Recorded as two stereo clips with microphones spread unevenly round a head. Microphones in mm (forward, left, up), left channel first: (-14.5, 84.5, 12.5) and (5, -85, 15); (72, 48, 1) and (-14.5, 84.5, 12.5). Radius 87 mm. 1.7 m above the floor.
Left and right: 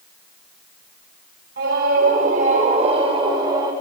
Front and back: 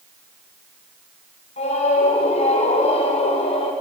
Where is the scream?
50° right, 5 m; by 3.7 s 15° right, 5 m.